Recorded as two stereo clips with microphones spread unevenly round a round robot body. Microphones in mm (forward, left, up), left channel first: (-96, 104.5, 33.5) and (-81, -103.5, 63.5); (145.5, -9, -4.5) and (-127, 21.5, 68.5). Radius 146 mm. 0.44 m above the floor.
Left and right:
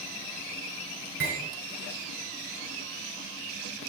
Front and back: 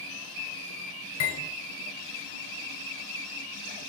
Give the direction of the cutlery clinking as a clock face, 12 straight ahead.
1 o'clock.